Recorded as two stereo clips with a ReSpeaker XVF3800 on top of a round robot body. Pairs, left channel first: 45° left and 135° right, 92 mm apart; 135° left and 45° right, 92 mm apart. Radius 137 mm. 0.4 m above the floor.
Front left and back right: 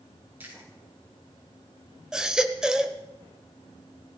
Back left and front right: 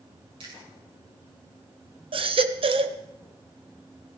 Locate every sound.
0.4 s chewing: 65° right, 6.5 m
2.1 s a baby crying: 50° right, 1.3 m